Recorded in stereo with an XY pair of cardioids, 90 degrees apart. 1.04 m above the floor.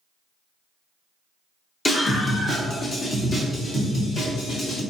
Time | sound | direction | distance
1.9 | a scream | 30° left | 1.6 m